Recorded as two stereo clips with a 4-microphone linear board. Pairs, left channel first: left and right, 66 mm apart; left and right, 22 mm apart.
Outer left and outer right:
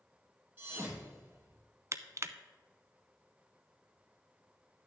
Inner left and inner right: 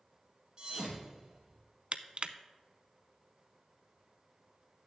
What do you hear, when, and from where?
0.6 s a thud: 25° right (ahead or behind), 3 m
1.9 s crushing: 45° right (ahead or behind), 0.6 m